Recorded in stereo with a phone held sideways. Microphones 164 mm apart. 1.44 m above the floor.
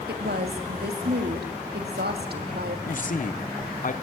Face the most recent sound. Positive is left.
turn(degrees=55)  # may be behind; listen again after turning